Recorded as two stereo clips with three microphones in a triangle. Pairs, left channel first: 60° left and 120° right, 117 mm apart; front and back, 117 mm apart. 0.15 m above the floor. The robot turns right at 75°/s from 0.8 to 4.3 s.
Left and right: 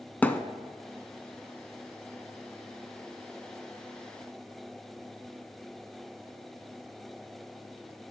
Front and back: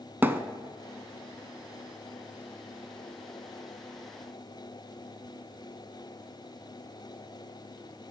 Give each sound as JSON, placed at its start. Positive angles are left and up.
{"t": 0.2, "sound": "a thud", "azimuth_deg": 125, "distance_m": 0.5}